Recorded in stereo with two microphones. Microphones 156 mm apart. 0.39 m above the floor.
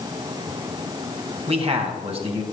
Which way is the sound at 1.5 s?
40° right (ahead or behind).